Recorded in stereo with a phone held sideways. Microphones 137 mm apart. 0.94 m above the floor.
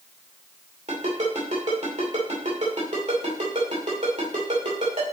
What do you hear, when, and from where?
0.9 s a ringtone: 60° right (ahead or behind), 2.5 m